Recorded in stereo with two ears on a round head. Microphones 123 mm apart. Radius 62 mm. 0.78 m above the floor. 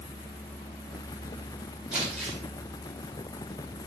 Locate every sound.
1.9 s crumpling: 5° right (ahead or behind), 3.5 m